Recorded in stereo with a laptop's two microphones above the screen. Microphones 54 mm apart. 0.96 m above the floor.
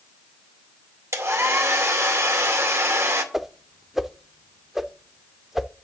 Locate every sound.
1.1 s a hair dryer: 55° right (ahead or behind), 2 m
3.3 s a whoosh: 5° right (ahead or behind), 0.6 m